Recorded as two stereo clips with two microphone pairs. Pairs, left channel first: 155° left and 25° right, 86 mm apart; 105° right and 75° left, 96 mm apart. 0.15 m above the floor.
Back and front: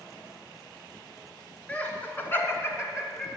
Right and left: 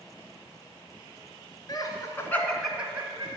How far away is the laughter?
About 1.9 m.